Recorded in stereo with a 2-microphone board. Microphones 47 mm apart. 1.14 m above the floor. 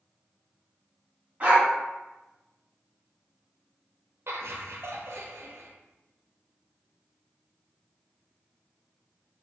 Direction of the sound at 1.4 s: 35° right (ahead or behind).